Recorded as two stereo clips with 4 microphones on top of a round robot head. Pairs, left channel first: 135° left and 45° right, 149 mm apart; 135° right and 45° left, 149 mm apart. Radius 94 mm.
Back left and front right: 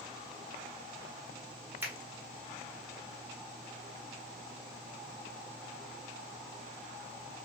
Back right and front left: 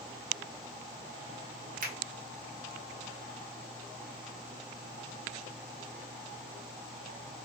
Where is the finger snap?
30° left, 1.2 m.